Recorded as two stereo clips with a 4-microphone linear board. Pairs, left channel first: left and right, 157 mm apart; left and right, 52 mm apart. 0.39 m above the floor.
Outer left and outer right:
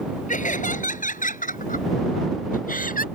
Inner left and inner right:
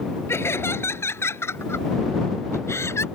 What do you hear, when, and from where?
0.3 s laughter: 55° left (ahead or behind); by 3.0 s 65° left (ahead or behind)